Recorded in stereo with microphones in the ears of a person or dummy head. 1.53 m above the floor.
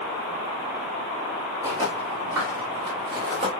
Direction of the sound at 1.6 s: 10° right (ahead or behind).